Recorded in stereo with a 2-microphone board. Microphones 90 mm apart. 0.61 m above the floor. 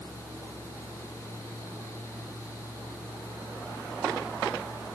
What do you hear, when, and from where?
Only background noise.